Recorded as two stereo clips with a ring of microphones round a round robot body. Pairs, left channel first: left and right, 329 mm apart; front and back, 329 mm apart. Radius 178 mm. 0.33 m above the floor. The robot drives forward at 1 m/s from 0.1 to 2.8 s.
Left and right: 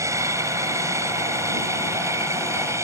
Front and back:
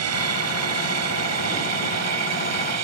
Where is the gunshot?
No gunshot in this recording.